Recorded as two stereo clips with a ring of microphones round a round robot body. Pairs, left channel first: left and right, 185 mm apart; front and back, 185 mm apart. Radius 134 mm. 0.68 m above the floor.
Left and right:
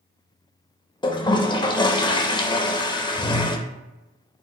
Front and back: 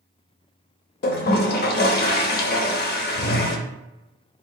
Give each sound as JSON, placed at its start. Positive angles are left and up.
{"t": 1.0, "sound": "a toilet flushing", "azimuth_deg": 25, "distance_m": 0.6}